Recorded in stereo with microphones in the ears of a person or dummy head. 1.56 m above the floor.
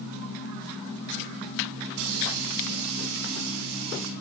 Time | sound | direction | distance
1.9 | a hiss | 80° right | 4.5 m